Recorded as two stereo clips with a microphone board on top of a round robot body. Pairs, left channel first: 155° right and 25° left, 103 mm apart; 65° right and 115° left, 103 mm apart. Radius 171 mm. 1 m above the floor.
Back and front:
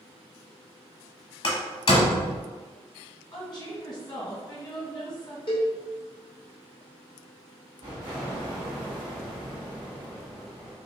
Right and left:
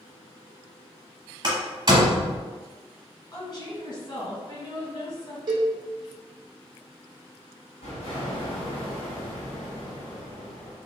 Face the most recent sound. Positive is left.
turn(degrees=-30)